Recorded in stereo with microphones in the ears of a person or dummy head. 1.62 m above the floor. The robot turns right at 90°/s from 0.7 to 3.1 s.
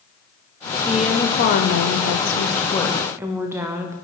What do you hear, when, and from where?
0.9 s a woman speaking: 15° right, 0.5 m; by 3.9 s 170° right, 0.5 m